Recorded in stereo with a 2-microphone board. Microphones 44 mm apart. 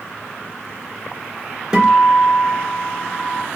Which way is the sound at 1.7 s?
15° right (ahead or behind).